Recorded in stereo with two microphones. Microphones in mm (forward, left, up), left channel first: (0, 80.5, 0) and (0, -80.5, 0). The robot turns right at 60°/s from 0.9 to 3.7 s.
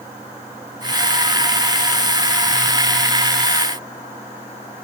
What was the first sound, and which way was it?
Only background noise.